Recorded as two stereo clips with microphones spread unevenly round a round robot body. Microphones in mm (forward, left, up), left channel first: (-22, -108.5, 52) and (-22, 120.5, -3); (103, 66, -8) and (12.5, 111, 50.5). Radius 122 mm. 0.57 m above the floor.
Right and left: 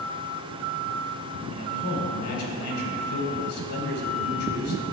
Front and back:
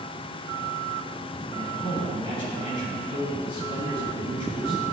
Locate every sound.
1.5 s a man speaking: 60° right, 2.5 m